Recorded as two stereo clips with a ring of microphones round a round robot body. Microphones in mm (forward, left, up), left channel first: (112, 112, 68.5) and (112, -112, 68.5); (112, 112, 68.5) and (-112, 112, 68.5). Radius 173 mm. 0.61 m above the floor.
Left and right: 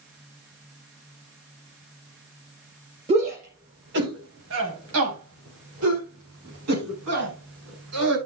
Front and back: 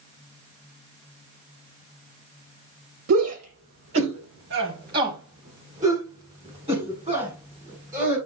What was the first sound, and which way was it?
A shout, 160° right.